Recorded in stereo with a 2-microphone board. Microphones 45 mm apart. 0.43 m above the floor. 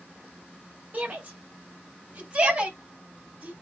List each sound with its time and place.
0.9 s a shout: 40° right (ahead or behind), 2 m; by 3.5 s 35° right (ahead or behind), 4 m